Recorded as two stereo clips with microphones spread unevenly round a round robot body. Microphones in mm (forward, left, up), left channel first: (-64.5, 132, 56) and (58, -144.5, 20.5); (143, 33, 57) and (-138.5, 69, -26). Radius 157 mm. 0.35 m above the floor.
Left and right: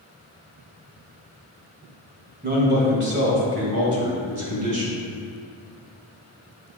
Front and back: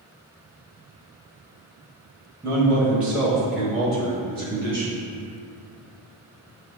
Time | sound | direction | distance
2.4 | a man speaking | 120° right | 2 m